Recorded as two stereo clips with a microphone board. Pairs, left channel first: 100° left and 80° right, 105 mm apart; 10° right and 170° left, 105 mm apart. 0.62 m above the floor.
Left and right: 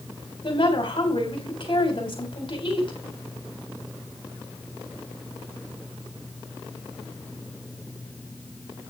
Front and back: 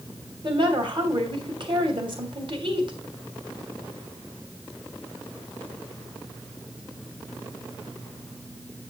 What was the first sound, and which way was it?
A woman speaking, 135° left.